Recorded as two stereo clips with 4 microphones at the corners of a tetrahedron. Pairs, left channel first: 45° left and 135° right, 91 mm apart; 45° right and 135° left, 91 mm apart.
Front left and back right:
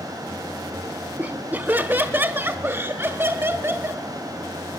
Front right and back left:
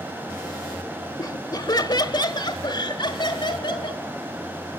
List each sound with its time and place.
1.2 s laughter: 65° right, 1.2 m; by 4.0 s 70° right, 3 m